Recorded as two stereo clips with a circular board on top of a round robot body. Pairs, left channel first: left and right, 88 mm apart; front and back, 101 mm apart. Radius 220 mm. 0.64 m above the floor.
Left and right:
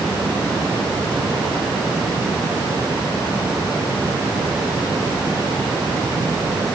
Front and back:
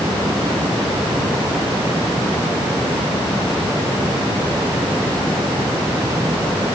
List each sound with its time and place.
Only background noise.